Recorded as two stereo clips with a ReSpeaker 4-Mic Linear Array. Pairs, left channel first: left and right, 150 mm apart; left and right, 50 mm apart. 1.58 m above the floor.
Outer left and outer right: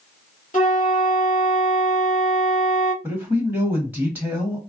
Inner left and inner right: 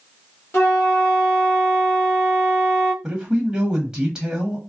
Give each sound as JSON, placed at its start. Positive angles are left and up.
{"t": 0.5, "sound": "a flute", "side_deg": 60, "distance_m": 1.6}
{"t": 3.0, "sound": "a man speaking", "side_deg": -10, "distance_m": 1.1}